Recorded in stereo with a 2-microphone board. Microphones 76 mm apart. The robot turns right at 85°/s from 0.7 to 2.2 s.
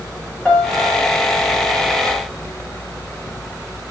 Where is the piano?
165° left, 1.0 m; by 1.3 s 140° right, 1.0 m.